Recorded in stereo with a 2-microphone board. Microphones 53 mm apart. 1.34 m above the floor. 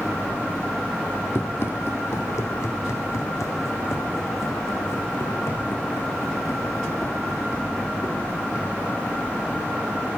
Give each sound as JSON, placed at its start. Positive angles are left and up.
{"t": 1.4, "sound": "running footsteps", "side_deg": 50, "distance_m": 2.0}